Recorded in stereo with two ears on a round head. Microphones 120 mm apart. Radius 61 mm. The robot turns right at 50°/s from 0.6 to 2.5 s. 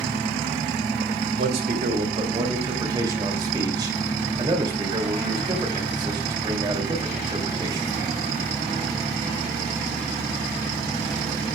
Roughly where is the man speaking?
Right.